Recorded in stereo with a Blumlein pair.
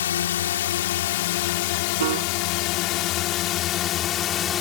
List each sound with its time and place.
0.0 s a drone: 60° left; by 4.6 s 25° left
2.0 s a piano: 55° right